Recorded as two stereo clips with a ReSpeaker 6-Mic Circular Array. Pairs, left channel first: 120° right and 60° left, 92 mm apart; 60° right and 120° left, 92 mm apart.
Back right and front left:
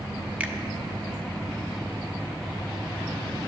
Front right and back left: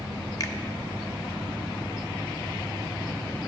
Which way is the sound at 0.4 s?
15° right.